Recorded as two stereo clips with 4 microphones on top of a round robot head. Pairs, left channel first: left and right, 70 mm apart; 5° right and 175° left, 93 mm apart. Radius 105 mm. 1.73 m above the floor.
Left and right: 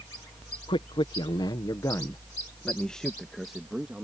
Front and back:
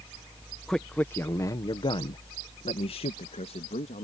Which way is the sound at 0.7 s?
80° left.